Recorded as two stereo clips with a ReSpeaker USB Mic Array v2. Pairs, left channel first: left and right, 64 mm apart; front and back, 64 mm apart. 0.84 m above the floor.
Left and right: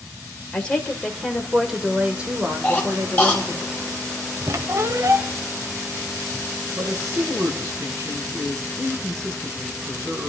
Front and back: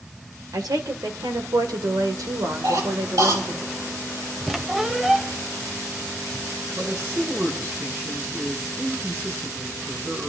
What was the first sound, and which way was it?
A woman speaking, 160° left.